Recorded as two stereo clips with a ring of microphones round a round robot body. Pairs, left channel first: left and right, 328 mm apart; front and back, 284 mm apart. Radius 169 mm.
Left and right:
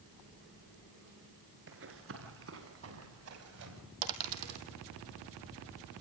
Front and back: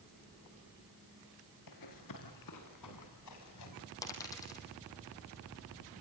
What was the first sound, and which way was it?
Running footsteps, 35° right.